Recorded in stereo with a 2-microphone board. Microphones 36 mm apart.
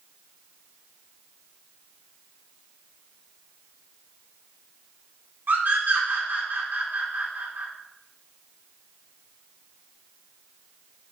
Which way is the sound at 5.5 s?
55° right (ahead or behind).